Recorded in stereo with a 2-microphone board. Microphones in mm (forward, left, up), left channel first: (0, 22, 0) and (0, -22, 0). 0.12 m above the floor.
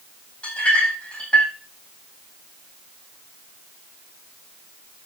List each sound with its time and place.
0.4 s a clink: 30° left (ahead or behind), 4 m